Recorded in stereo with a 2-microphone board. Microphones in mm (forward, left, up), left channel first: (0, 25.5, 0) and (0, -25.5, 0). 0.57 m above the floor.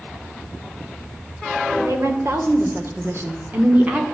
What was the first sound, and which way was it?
A woman speaking, 65° right (ahead or behind).